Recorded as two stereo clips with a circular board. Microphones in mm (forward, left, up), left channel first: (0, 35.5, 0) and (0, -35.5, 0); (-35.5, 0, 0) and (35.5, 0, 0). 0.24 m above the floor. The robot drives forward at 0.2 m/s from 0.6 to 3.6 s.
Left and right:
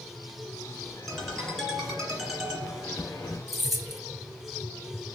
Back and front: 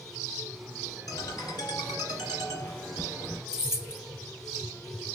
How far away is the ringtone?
About 2.5 m.